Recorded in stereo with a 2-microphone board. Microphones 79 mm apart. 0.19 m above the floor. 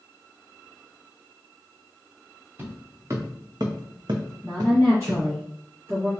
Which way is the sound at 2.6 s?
30° right (ahead or behind).